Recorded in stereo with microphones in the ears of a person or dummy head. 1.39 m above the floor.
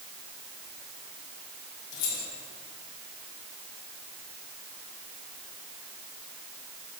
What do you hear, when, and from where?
1.9 s keys jangling: 80° left, 3.5 m